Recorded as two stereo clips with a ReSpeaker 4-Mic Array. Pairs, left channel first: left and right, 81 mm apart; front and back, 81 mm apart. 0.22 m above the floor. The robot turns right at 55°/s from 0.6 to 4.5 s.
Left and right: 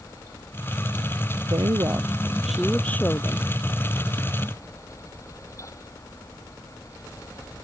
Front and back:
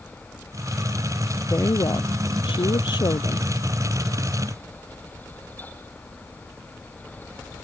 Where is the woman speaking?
60° right; by 3.5 s 50° left.